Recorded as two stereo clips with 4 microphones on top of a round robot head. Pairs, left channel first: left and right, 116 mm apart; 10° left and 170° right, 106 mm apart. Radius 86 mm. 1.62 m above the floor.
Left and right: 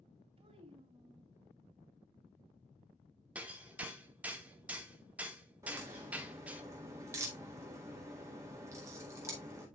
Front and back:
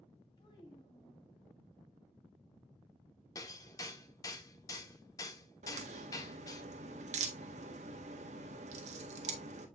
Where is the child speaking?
50° right, 3 m.